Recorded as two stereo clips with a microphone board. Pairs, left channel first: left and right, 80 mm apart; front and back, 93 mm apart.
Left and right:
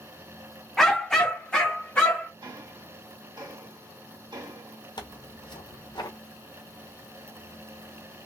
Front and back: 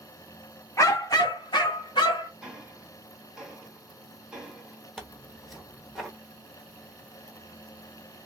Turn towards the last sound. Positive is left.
turn(degrees=90)